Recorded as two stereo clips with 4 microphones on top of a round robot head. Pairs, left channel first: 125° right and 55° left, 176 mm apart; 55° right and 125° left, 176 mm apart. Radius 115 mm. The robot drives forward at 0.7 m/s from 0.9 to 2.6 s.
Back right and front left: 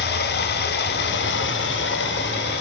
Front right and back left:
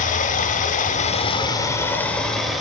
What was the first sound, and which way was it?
Running water, 100° right.